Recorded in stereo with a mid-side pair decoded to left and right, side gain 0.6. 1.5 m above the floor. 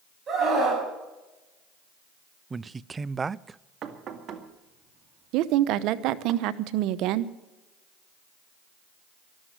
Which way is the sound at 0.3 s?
35° right.